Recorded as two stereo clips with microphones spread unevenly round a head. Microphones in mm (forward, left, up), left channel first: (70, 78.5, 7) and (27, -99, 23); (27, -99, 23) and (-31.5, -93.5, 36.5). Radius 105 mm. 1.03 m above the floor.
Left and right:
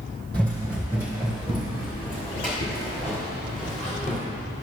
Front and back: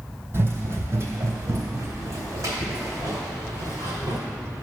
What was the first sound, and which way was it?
Running footsteps, 165° left.